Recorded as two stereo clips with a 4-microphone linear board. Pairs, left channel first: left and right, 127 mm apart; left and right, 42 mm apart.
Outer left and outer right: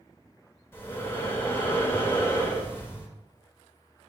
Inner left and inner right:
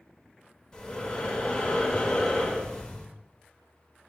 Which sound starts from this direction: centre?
Breathing, at 0.7 s.